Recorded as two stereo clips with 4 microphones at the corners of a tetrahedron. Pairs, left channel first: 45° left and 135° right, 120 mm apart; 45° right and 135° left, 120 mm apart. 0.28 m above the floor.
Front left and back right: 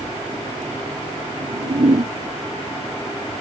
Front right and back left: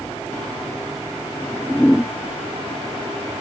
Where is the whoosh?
125° right.